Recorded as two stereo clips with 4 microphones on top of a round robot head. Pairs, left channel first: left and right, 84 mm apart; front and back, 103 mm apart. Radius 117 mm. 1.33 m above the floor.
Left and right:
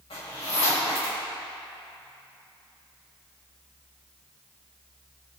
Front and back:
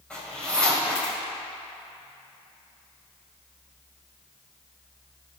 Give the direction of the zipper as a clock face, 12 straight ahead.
9 o'clock.